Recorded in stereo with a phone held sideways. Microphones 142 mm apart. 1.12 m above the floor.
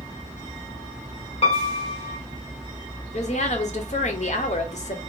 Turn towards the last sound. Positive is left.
turn(degrees=55)  # may be behind; listen again after turning